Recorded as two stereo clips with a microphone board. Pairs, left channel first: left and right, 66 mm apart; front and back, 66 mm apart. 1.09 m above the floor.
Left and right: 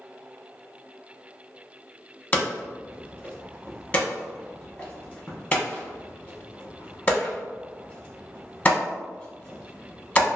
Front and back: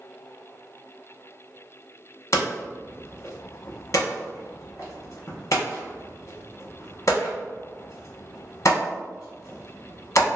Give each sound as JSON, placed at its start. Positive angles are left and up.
{"t": 2.3, "sound": "hammering", "azimuth_deg": 30, "distance_m": 0.9}